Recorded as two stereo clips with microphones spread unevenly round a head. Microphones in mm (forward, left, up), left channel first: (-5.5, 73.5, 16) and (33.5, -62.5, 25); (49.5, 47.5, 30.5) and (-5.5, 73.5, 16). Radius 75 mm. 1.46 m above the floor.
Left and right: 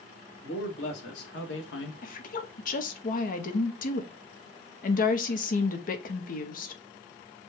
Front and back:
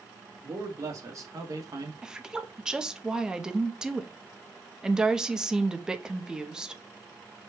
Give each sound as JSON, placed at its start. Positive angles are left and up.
{"t": 0.4, "sound": "a man speaking", "azimuth_deg": 115, "distance_m": 1.9}
{"t": 2.0, "sound": "a woman speaking", "azimuth_deg": 80, "distance_m": 0.9}